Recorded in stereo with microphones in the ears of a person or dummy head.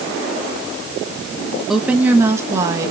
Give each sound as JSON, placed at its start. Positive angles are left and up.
{"t": 1.7, "sound": "a woman speaking", "side_deg": -5, "distance_m": 1.0}